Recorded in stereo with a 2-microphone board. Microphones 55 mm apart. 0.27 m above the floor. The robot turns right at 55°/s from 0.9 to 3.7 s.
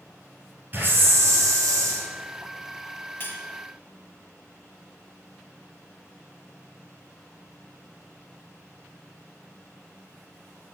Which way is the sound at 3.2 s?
40° left (ahead or behind).